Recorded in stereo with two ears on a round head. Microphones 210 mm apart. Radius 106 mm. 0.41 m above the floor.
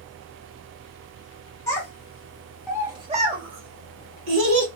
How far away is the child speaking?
About 1.3 m.